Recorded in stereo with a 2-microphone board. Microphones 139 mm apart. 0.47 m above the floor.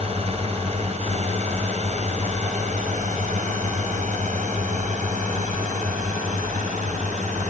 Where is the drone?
45° right (ahead or behind); by 7.5 s 60° right (ahead or behind).